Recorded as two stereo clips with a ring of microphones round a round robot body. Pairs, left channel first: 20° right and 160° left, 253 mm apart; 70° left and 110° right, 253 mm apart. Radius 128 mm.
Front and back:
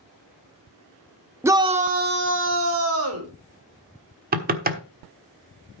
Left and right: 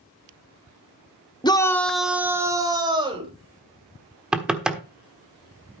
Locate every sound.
1.4 s a shout: 95° left, 1.2 m; by 3.3 s straight behind, 2.5 m
4.3 s knocking: 165° left, 1.2 m